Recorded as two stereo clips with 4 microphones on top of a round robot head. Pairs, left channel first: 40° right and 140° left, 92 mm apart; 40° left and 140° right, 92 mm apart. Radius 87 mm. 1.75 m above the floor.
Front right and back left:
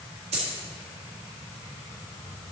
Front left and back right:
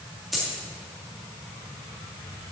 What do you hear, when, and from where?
0.3 s a dropped coin: 130° left, 1.7 m